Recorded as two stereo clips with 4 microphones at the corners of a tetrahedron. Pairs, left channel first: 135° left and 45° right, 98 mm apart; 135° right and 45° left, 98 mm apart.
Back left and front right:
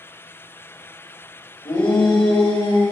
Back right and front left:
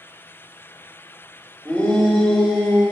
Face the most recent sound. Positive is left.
turn(degrees=140)